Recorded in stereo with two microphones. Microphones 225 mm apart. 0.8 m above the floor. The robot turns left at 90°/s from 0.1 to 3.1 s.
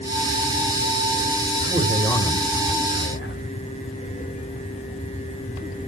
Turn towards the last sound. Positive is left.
turn(degrees=90)